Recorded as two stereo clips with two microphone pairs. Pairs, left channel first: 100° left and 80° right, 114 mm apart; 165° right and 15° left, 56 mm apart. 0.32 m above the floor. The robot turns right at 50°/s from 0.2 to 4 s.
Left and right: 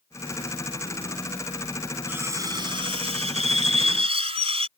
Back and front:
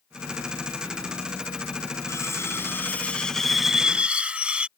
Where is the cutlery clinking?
150° right; by 4.7 s 55° right.